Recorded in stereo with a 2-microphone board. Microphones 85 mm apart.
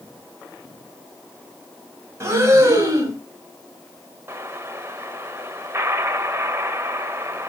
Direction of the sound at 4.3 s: 30° right (ahead or behind).